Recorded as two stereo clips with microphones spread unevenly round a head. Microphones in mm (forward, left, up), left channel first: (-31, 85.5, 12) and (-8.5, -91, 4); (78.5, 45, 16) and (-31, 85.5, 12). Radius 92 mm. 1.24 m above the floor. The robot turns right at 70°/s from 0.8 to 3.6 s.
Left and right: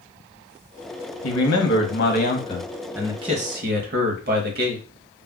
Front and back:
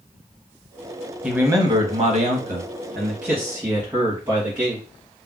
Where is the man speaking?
75° left, 1.0 m; by 4.8 s 120° right, 1.0 m.